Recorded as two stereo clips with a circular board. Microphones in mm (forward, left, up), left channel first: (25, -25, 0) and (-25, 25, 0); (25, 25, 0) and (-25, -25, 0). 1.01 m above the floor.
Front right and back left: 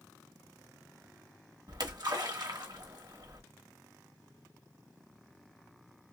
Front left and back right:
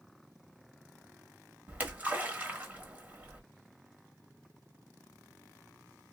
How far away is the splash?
About 1.1 m.